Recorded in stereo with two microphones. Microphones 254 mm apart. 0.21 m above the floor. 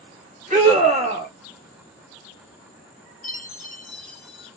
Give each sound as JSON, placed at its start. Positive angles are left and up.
{"t": 0.5, "sound": "a scream", "side_deg": -30, "distance_m": 1.4}
{"t": 3.2, "sound": "a chime", "side_deg": 35, "distance_m": 0.9}